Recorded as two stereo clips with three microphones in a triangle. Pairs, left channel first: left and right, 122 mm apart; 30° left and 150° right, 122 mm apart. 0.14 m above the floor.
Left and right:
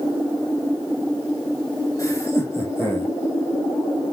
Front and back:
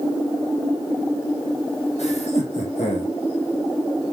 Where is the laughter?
30° left, 4.5 m; by 3.1 s 20° left, 5.5 m.